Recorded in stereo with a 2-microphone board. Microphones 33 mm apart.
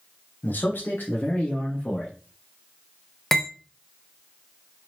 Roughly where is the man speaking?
Left.